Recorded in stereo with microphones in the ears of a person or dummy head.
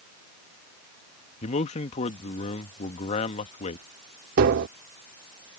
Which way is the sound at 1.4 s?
35° left (ahead or behind).